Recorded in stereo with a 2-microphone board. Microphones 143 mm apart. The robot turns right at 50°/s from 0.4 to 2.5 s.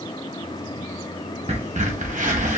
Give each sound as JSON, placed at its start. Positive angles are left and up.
{"t": 1.5, "sound": "a crack", "side_deg": -45, "distance_m": 0.9}